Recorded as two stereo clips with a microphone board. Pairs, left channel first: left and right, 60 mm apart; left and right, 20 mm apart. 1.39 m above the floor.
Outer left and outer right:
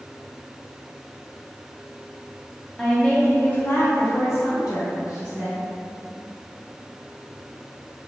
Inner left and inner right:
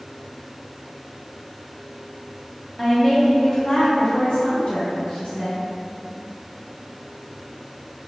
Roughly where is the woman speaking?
Centre.